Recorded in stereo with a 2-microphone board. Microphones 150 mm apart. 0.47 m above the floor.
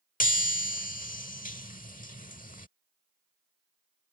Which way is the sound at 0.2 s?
60° left (ahead or behind).